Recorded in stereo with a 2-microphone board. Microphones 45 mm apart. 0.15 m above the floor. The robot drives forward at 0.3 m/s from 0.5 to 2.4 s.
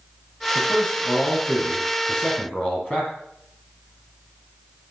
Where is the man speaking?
25° left (ahead or behind), 4.5 m; by 3.1 s 30° left (ahead or behind), 4 m.